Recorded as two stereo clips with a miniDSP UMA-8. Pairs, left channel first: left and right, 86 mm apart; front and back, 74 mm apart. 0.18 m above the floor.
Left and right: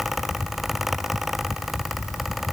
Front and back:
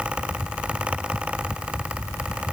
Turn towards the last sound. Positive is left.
No sound to turn to.